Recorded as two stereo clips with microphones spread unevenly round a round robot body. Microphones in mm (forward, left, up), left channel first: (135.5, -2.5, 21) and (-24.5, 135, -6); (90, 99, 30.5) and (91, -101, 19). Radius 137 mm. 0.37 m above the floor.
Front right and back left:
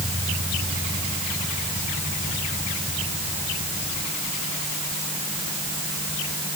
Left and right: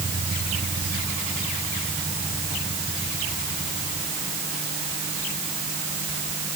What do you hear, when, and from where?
Only background noise.